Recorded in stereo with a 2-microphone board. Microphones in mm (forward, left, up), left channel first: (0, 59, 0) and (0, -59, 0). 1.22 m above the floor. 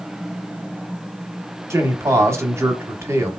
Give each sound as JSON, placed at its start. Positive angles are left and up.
{"t": 1.7, "sound": "a man speaking", "side_deg": -25, "distance_m": 0.9}